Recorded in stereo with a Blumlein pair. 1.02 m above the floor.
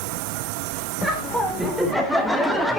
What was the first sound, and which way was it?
Laughter, 5° right.